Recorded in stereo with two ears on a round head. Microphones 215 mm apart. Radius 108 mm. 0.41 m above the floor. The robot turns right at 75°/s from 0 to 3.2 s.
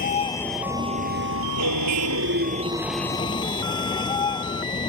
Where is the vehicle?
140° left; by 4.9 s 20° left.